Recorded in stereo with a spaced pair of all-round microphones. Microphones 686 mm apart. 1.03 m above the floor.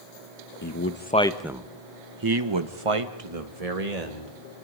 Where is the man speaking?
25° left (ahead or behind), 1.2 m; by 4.4 s 70° right (ahead or behind), 2 m.